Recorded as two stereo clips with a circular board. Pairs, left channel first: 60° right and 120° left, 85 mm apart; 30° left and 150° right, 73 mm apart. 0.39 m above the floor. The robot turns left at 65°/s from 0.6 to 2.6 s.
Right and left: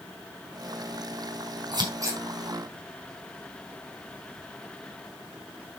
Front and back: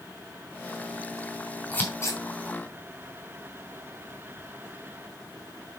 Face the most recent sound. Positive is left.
turn(degrees=40)